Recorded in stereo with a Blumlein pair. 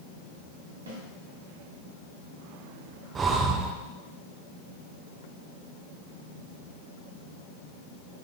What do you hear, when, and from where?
0.9 s a snare drum: 70° right, 2.5 m
3.1 s breathing: 20° right, 0.6 m